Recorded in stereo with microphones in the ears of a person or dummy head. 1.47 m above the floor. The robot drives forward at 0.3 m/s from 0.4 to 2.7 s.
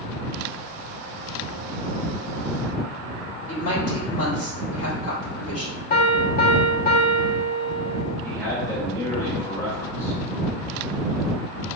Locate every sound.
3.5 s a woman speaking: 50° left (ahead or behind), 1.6 m
5.9 s a piano: 55° left (ahead or behind), 0.7 m
8.2 s a man speaking: 20° left (ahead or behind), 1.2 m